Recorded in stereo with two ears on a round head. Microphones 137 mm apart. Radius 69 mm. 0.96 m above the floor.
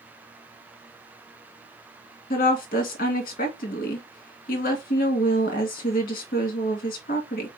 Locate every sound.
2.3 s a woman speaking: 60° left (ahead or behind), 1.8 m